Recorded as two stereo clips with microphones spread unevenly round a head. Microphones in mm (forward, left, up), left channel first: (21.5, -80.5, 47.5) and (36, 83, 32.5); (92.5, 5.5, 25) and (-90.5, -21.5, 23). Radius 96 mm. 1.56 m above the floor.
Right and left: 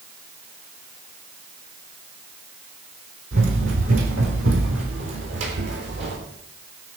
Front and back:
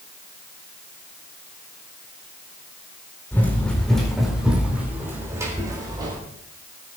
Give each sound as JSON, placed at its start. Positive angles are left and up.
{"t": 3.3, "sound": "running footsteps", "azimuth_deg": 85, "distance_m": 4.0}